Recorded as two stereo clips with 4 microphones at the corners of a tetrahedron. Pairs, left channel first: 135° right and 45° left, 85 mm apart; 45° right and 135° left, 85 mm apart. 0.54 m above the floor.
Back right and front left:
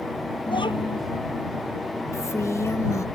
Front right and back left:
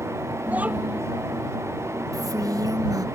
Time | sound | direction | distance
0.5 | a child speaking | 150° right | ?
2.1 | a woman speaking | 175° left | ?